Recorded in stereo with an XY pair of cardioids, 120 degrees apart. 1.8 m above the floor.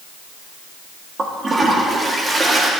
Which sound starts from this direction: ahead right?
A toilet flushing, at 1.2 s.